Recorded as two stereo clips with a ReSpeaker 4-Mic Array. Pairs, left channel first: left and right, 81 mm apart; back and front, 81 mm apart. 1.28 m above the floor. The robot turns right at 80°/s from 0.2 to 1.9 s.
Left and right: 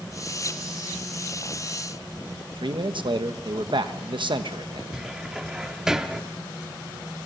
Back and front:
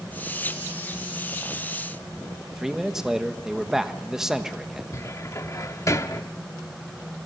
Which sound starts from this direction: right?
A man speaking, at 2.5 s.